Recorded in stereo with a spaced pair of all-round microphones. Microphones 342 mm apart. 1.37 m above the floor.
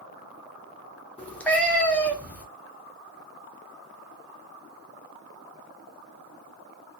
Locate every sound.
1.2 s a cat meowing: 5° left (ahead or behind), 0.9 m